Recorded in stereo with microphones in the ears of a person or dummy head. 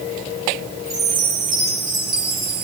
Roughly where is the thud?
I don't hear a thud.